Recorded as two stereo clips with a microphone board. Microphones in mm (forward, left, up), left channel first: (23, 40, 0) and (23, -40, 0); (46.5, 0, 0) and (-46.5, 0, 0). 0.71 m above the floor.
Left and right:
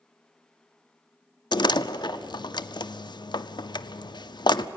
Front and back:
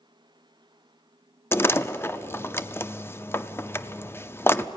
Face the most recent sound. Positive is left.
turn(degrees=65)